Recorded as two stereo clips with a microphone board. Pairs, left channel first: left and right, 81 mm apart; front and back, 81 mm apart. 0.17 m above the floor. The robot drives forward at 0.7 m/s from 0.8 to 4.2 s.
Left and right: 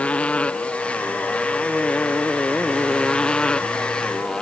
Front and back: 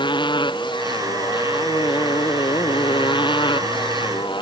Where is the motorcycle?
15° left; by 4.4 s 10° left.